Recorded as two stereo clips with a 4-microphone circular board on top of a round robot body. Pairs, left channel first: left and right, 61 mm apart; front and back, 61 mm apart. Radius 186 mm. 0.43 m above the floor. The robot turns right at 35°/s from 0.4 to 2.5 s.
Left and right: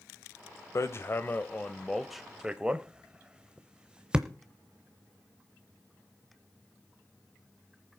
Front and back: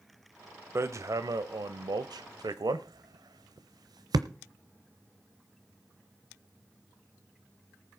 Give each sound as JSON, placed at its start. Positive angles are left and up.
{"t": 0.8, "sound": "hammering", "azimuth_deg": 130, "distance_m": 0.7}